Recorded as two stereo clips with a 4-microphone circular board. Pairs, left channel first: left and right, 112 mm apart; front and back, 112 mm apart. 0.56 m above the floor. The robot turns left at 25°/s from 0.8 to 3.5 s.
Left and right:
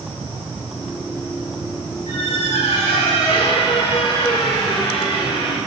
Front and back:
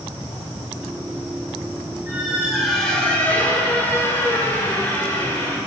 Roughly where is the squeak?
Left.